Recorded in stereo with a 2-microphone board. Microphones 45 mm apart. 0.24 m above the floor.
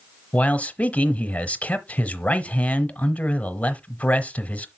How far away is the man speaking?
About 1.1 m.